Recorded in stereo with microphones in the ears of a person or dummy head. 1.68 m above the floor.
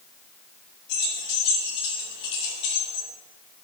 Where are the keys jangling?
60° left (ahead or behind), 5 m; by 3.1 s 55° left (ahead or behind), 3.5 m.